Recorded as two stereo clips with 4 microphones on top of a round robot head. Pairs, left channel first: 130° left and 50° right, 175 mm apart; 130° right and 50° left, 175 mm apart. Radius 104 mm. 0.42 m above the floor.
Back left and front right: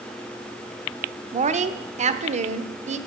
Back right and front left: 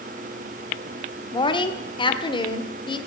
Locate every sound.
1.3 s a woman speaking: 80° right, 1.1 m